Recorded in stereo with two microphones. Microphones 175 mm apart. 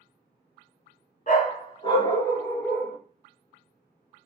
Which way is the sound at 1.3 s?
55° left (ahead or behind).